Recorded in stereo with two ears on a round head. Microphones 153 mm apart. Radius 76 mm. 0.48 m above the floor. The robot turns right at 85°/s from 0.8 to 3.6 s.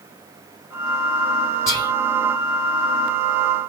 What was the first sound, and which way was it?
Whispering, 15° left (ahead or behind).